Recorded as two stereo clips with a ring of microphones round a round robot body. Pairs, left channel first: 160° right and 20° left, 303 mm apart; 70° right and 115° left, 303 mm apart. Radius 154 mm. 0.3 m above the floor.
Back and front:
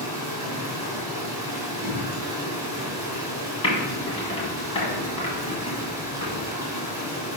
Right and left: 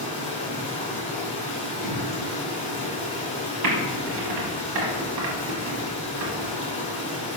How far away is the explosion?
About 1.6 m.